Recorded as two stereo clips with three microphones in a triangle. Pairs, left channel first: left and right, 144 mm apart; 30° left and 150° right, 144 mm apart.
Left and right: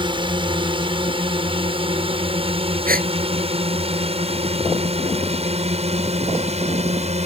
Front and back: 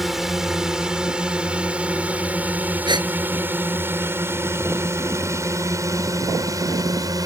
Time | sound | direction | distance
0.0 | a drone | 65° right | ?
2.9 | a gasp | 90° right | ?